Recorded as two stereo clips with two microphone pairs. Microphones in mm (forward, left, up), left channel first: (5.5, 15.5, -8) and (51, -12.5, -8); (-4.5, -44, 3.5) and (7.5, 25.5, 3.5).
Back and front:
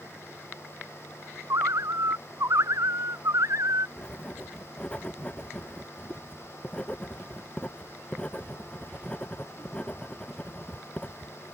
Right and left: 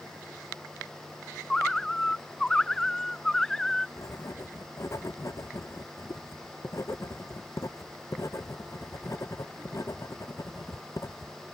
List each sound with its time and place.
1.5 s a bird: 20° right
4.0 s writing: 140° right